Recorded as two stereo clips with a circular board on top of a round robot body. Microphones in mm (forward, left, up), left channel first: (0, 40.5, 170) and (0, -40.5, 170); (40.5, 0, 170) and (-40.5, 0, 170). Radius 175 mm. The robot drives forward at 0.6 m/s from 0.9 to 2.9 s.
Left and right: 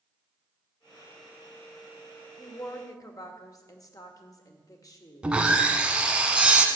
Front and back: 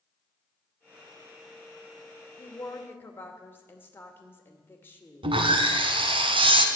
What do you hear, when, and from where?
2.4 s a woman speaking: 50° left, 2.5 m; by 5.3 s 60° left, 2.5 m
5.2 s sawing: 170° right, 0.9 m